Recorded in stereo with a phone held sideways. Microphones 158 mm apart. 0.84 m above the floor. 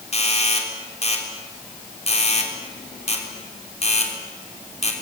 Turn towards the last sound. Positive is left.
turn(degrees=45)  # may be behind; listen again after turning